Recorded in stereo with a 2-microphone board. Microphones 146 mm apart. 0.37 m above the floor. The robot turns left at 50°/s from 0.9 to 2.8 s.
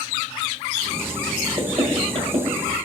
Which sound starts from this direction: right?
Knocking, at 1.6 s.